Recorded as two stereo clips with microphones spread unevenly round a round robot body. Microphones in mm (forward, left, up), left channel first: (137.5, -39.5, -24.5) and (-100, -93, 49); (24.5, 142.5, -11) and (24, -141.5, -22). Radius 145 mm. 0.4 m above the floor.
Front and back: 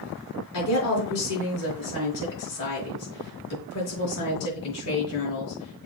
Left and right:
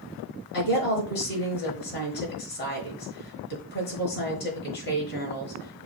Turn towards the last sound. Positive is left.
turn(degrees=35)